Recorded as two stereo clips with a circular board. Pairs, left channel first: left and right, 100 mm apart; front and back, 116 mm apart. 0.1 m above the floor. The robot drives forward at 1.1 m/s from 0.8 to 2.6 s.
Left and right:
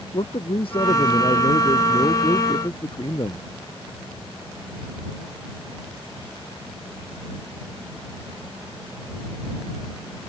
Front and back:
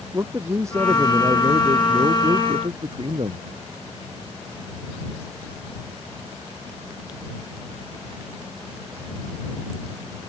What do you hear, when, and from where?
0.1 s a man speaking: 115° left; by 3.5 s 135° left